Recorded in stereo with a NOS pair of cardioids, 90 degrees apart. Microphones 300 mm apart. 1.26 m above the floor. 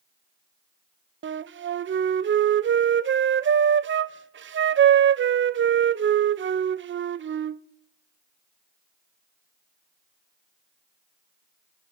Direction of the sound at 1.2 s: 40° right.